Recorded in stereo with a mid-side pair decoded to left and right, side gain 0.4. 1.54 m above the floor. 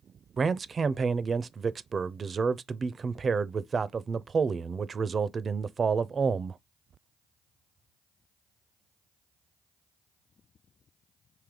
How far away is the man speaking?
About 0.5 m.